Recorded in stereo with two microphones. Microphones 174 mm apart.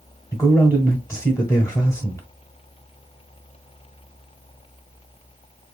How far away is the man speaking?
About 1.2 m.